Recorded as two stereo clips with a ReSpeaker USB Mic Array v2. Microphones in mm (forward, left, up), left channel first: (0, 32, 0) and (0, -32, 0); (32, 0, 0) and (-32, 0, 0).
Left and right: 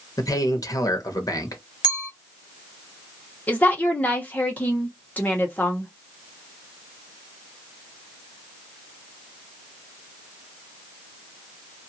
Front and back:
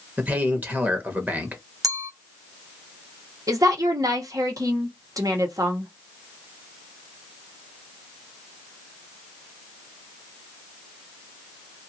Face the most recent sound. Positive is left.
turn(degrees=155)